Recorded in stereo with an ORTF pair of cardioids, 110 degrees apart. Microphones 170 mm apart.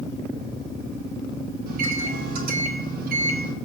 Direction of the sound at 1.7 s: 65° right.